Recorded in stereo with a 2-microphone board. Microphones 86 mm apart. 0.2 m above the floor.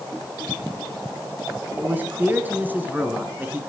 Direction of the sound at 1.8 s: 20° right (ahead or behind).